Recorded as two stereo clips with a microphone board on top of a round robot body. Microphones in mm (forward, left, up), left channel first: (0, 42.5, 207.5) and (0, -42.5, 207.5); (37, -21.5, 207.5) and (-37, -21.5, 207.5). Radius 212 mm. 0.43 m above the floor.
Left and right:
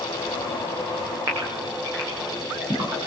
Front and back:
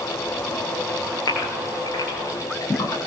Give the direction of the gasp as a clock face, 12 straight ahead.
1 o'clock.